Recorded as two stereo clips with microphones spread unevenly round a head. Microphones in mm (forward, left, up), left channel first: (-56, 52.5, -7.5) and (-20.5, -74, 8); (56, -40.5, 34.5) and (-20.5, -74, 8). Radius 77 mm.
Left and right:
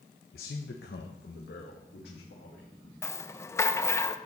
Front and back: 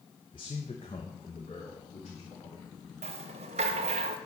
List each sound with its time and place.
0.3 s a man speaking: 70° left, 0.6 m; by 2.9 s 80° left, 2 m
3.0 s a rattle: straight behind, 0.7 m